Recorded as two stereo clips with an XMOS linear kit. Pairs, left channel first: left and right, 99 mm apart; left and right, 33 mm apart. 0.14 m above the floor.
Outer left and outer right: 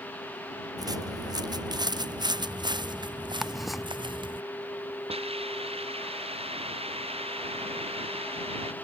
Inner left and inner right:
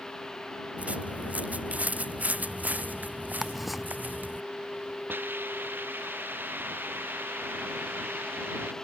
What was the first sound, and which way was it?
Footsteps, 40° right (ahead or behind).